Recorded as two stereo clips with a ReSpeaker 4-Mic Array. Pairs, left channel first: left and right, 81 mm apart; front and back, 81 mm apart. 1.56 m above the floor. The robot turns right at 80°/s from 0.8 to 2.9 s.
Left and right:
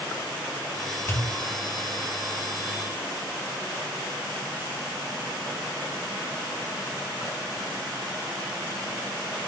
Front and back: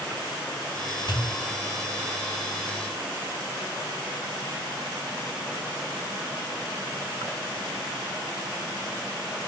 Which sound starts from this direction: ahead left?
A pop, at 1.1 s.